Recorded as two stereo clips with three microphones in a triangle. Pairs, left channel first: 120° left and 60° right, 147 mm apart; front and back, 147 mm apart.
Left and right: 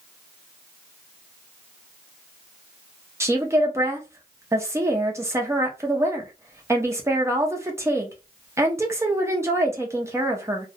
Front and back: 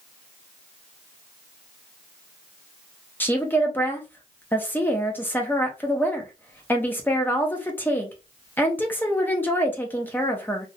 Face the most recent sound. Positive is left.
turn(degrees=-50)